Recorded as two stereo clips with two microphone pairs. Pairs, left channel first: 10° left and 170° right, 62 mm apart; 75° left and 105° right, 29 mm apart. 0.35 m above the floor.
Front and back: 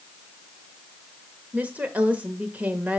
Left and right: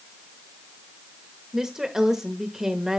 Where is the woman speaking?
155° right, 1.0 m.